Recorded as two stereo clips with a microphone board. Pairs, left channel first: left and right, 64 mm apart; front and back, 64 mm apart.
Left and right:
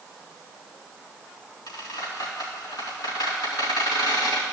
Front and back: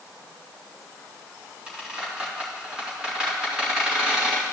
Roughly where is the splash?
No splash in this recording.